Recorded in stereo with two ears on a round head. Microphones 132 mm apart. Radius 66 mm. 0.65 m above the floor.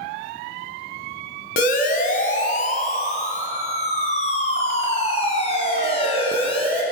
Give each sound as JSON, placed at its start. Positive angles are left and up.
{"t": 1.6, "sound": "a siren", "side_deg": 65, "distance_m": 4.0}